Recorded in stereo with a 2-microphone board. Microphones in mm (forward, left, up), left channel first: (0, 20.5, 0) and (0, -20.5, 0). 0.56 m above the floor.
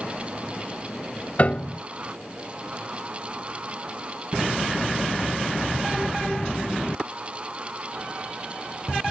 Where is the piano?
40° left (ahead or behind).